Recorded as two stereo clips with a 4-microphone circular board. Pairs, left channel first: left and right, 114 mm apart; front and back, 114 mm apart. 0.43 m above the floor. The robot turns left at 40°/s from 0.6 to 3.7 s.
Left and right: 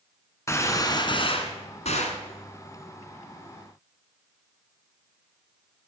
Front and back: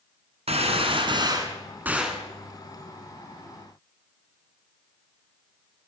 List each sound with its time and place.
0.5 s a gunshot: 155° left, 1.8 m; by 2.2 s 90° left, 1.8 m